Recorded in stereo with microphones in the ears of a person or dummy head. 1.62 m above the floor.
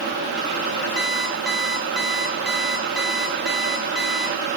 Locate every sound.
1.0 s an alarm clock: centre (ahead or behind), 3 m